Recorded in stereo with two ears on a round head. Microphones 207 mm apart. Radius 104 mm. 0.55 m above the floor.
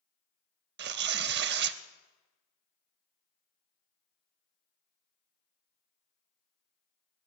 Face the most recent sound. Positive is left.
turn(degrees=-45)  # may be behind; listen again after turning